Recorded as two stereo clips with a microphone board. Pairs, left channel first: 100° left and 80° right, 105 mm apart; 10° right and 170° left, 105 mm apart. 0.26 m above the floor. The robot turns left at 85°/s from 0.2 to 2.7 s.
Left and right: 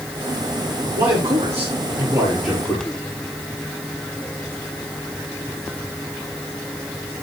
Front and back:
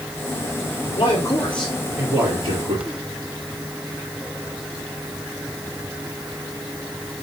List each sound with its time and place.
1.0 s a man speaking: 35° right, 5.5 m; by 2.9 s straight behind, 5.5 m